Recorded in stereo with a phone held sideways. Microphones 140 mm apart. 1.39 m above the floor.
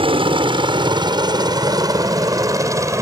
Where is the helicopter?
40° right (ahead or behind); by 3.0 s 20° right (ahead or behind).